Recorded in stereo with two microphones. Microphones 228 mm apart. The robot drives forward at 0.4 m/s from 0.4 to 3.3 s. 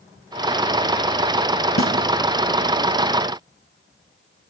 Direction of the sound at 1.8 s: 70° left (ahead or behind).